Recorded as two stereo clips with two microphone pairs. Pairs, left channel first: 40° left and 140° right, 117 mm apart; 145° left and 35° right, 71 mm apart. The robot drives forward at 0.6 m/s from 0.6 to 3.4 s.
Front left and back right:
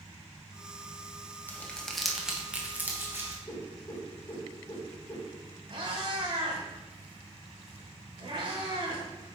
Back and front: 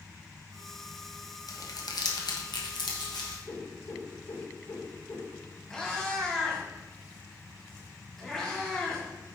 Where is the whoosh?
100° left, 2 m.